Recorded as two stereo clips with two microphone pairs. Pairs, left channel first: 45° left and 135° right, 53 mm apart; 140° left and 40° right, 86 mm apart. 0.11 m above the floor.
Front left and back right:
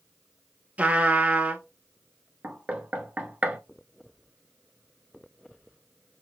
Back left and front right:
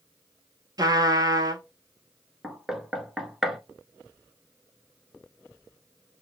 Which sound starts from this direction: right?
A trumpet, at 0.8 s.